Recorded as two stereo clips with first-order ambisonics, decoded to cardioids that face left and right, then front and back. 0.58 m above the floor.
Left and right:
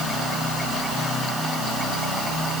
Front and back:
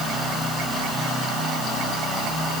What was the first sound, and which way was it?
Only background noise.